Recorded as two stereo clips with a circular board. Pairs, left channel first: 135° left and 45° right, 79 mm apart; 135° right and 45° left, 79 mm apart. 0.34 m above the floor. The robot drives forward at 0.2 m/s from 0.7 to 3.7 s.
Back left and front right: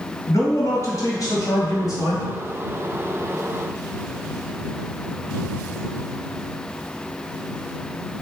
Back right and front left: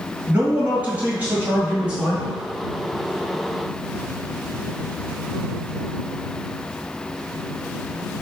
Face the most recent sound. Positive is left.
turn(degrees=125)